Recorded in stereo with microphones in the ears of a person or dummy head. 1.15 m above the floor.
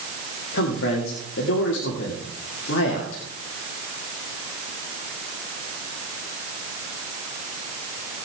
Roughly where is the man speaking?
Left.